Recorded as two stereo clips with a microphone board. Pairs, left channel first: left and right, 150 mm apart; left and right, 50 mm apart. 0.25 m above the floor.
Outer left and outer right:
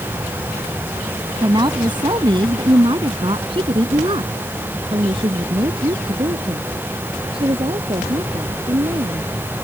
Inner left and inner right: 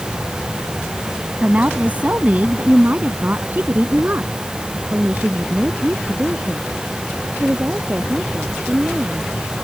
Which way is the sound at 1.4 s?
30° right (ahead or behind).